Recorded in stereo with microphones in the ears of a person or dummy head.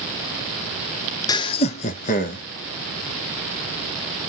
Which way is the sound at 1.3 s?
25° left (ahead or behind).